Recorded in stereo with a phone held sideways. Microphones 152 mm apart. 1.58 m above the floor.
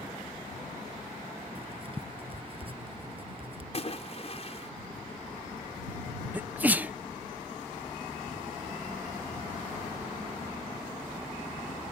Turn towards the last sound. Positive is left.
turn(degrees=-10)  # may be behind; listen again after turning